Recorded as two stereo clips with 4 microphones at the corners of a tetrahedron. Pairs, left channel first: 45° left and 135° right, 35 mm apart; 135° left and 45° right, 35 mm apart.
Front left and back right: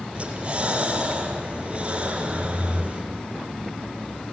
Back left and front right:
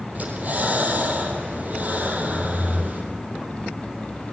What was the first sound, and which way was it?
Breathing, 80° right.